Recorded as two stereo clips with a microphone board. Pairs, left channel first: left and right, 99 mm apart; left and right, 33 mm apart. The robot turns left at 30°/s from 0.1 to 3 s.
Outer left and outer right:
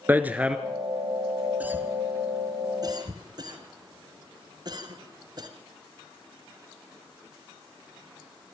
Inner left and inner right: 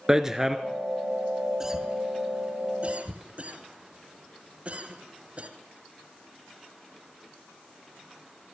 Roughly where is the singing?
No singing in this recording.